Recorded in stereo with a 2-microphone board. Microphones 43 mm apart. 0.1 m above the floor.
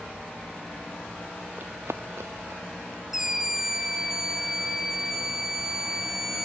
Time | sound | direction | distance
1.6 | running footsteps | 50° right (ahead or behind) | 0.7 m
3.1 | a scream | 10° right (ahead or behind) | 1.1 m